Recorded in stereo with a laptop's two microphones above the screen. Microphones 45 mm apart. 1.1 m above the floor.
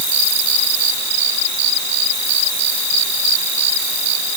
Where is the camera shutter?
No camera shutter in this recording.